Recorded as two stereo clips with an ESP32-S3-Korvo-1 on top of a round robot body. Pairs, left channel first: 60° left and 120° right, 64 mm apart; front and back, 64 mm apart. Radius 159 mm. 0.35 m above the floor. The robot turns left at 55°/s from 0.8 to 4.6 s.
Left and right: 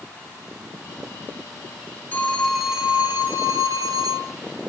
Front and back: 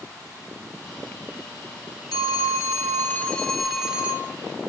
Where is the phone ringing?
5° right, 1.7 m; by 4.3 s 125° right, 1.7 m.